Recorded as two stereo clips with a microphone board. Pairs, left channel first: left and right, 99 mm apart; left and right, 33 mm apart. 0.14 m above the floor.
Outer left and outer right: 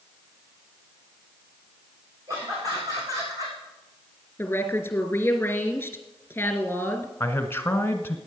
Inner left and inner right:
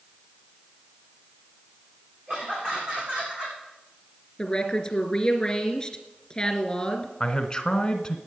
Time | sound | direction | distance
2.3 | laughter | 35° right (ahead or behind) | 9.5 m
4.4 | a woman speaking | 20° left (ahead or behind) | 2.5 m
7.2 | a man speaking | 25° left (ahead or behind) | 1.1 m